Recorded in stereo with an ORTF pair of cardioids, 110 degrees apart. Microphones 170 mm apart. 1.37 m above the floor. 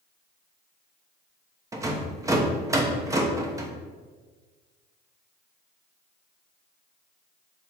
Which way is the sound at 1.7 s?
20° right.